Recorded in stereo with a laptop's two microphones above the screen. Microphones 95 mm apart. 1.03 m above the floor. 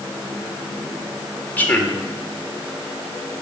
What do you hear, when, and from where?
1.6 s a man speaking: 20° left (ahead or behind), 3 m